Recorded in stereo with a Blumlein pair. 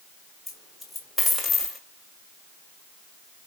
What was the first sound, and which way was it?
A dropped coin, 5° left.